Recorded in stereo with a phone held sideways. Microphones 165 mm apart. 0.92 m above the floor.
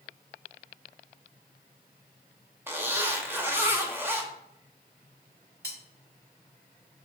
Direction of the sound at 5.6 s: 85° right.